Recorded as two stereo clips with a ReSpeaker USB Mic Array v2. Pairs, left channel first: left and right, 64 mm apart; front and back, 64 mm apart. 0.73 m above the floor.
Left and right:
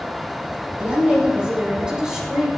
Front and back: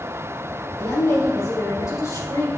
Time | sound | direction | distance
0.8 | a woman speaking | 25° right | 2 m